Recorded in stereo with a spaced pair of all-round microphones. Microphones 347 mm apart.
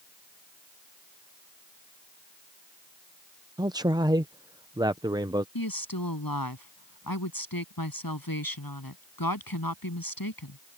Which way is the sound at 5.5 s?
70° left (ahead or behind).